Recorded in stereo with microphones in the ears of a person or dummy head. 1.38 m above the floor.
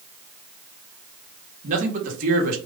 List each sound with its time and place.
1.6 s a man speaking: 50° right (ahead or behind), 1.1 m